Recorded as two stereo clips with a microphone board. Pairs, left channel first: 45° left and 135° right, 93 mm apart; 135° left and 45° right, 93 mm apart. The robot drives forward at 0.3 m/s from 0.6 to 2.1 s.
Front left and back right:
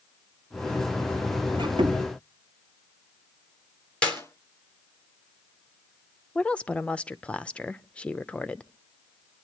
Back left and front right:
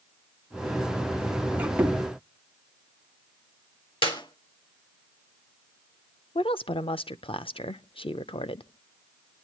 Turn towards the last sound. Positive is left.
turn(degrees=120)